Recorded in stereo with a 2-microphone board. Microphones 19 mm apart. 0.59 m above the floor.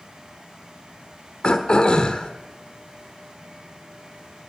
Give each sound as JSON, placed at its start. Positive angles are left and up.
{"t": 1.4, "sound": "throat clearing", "side_deg": 45, "distance_m": 1.4}